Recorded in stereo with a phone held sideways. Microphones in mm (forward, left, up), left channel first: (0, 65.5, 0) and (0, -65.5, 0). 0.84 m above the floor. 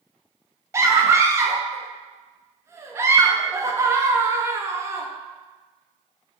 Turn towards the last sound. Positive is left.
turn(degrees=-20)  # may be behind; listen again after turning